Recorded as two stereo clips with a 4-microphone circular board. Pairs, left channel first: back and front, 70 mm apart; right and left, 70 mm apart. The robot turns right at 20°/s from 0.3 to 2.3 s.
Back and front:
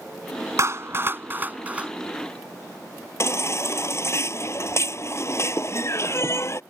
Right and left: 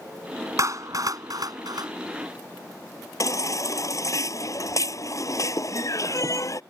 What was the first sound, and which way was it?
A clap, 45° left.